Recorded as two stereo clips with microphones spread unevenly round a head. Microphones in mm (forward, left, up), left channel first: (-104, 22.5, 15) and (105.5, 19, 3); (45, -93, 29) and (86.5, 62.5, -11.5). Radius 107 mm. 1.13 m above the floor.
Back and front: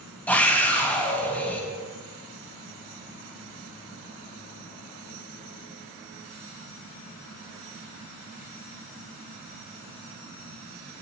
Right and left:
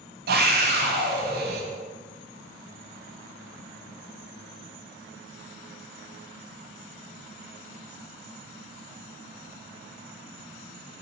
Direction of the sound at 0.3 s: 95° left.